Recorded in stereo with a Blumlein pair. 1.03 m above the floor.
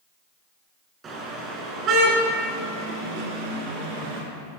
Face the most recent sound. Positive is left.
turn(degrees=-45)